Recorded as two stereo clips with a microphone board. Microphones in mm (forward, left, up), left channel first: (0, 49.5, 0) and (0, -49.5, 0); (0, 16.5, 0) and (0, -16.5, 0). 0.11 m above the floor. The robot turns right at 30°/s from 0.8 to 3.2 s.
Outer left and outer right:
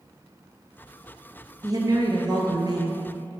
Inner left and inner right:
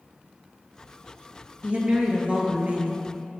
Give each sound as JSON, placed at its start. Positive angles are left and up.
{"t": 1.6, "sound": "a woman speaking", "azimuth_deg": -125, "distance_m": 1.6}